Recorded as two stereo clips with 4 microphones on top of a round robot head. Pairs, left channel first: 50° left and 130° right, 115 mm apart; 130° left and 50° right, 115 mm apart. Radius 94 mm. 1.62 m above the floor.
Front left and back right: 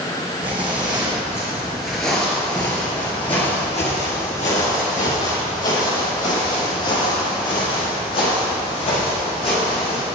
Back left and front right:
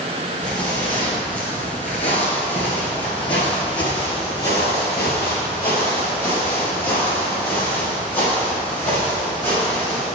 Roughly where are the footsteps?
Behind.